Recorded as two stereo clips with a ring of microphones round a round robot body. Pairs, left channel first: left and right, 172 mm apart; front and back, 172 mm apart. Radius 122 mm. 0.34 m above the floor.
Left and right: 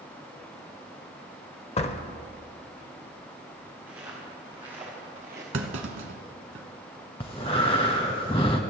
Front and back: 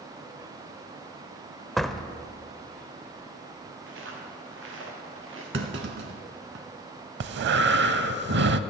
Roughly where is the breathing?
Behind.